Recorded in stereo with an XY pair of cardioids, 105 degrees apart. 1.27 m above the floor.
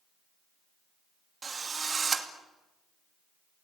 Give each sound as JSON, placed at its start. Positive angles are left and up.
{"t": 1.4, "sound": "a drill", "azimuth_deg": -35, "distance_m": 2.5}